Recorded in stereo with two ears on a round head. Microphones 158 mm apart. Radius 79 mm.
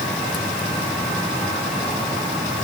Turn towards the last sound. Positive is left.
No sound to turn to.